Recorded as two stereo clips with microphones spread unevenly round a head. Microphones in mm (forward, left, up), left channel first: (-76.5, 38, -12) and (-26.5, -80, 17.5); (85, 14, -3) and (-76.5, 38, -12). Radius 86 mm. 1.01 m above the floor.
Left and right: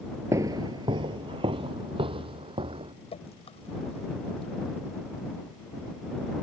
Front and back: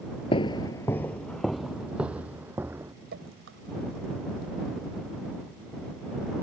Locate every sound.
0.3 s footsteps: 35° right; by 2.9 s 110° right
3.1 s dripping: 160° left